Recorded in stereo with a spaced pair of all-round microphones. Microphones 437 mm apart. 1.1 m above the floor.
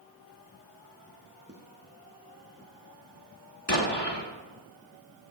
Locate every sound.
1.5 s footsteps: 30° right (ahead or behind), 3 m
3.7 s an explosion: 55° left (ahead or behind), 2.5 m